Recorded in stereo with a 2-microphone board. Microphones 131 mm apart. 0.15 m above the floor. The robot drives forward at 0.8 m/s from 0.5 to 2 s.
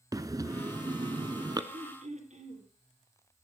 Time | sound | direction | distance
0.1 | breathing | 25° right (ahead or behind) | 0.9 m
1.7 | throat clearing | 60° right (ahead or behind) | 3.5 m